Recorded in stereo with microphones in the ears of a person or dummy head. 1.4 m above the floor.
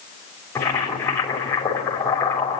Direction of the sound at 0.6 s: 15° left (ahead or behind).